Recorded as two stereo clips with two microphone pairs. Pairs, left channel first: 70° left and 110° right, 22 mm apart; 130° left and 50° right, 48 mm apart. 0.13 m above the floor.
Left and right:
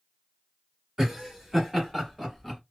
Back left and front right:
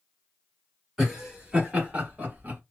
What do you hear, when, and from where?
1.0 s laughter: 120° right, 1.5 m; by 2.6 s 30° right, 1.7 m